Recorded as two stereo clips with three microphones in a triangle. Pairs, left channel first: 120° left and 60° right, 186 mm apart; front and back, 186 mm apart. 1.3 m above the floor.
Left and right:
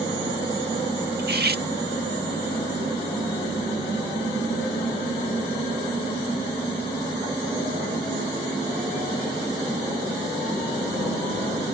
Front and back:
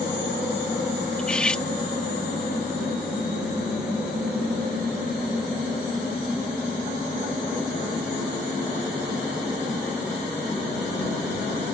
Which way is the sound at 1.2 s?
85° right.